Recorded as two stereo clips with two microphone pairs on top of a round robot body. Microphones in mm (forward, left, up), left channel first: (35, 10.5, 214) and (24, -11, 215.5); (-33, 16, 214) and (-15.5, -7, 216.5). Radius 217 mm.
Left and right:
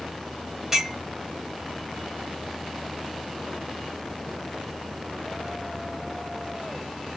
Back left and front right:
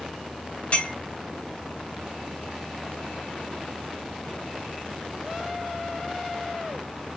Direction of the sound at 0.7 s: 165° left.